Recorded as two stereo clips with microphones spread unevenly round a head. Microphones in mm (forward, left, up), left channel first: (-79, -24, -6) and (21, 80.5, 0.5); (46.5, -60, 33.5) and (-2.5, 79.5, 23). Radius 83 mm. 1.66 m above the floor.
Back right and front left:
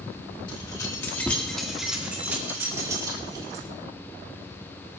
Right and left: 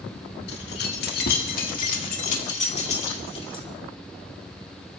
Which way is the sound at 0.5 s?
70° right.